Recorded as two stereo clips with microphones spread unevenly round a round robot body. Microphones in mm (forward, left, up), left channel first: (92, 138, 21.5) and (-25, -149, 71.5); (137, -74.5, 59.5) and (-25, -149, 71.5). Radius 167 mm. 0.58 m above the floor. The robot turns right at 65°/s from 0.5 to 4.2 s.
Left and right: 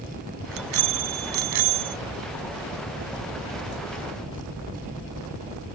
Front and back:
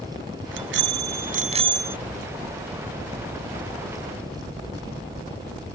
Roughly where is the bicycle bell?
Behind.